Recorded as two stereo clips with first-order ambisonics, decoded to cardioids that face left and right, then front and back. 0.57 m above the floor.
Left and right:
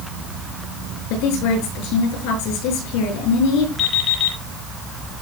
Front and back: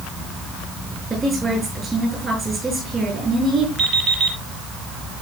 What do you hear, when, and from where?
1.1 s a woman speaking: 105° left, 6 m
3.8 s an alarm clock: 135° left, 9 m